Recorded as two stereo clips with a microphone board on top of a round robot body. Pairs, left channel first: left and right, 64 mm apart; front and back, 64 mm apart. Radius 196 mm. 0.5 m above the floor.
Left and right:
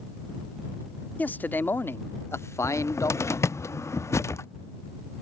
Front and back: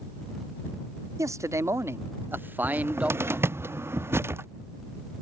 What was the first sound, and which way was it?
A man speaking, 150° left.